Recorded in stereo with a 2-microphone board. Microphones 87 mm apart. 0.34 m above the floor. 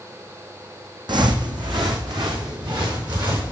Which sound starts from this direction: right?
Footsteps, at 1.1 s.